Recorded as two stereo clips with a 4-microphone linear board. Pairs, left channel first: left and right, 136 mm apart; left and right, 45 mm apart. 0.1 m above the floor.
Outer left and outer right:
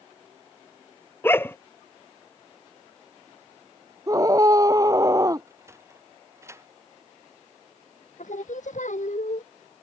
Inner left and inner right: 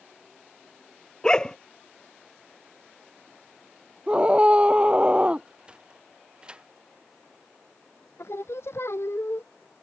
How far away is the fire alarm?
I don't hear a fire alarm.